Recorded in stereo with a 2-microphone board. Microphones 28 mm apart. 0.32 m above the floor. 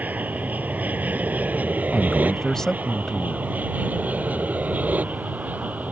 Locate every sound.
0.0 s an aircraft: 70° right (ahead or behind); by 5.9 s 65° right (ahead or behind)
1.9 s a man speaking: 15° left (ahead or behind)